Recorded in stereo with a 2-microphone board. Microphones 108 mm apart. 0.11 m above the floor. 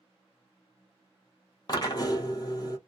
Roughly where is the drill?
Left.